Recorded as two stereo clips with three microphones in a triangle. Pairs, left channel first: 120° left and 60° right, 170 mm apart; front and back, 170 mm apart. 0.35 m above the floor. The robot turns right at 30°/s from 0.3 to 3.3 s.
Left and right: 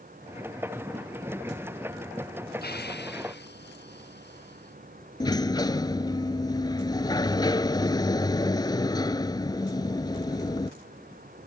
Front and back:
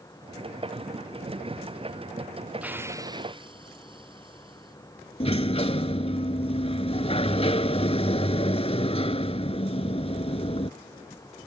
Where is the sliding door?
55° left.